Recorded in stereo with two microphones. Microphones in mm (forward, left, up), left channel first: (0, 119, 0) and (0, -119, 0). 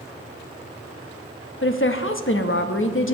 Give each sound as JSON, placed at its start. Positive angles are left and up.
{"t": 1.6, "sound": "a woman speaking", "side_deg": 55, "distance_m": 0.8}